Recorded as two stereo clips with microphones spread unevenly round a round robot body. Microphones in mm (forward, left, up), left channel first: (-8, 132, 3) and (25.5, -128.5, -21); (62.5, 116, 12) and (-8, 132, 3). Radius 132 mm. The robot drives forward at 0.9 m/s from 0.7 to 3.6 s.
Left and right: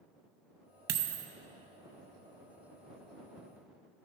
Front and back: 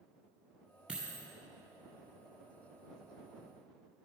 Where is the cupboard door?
I don't hear a cupboard door.